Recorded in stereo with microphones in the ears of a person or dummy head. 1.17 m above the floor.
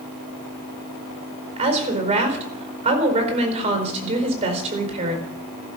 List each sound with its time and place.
1.6 s a woman speaking: 40° right (ahead or behind), 4.5 m